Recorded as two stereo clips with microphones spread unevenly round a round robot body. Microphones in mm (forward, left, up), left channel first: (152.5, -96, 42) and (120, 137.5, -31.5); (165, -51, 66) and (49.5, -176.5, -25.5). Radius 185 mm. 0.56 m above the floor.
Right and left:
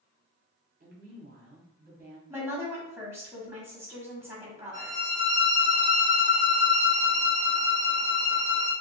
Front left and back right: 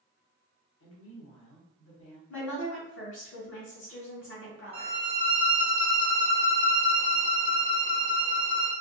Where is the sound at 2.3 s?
25° left, 1.3 m.